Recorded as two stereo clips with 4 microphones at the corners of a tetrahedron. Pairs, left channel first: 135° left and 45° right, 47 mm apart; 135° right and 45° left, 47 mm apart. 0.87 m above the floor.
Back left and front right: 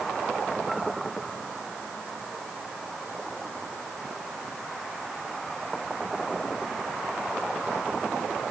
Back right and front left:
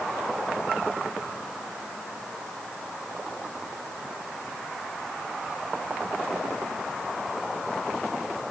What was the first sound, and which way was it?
Only background noise.